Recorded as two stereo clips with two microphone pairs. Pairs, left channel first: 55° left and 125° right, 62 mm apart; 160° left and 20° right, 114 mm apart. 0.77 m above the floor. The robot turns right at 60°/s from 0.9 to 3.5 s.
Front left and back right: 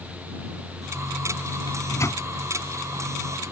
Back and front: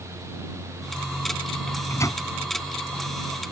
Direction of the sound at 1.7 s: 75° left.